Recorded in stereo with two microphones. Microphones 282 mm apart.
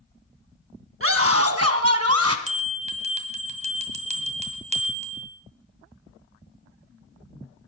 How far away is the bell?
About 1.7 m.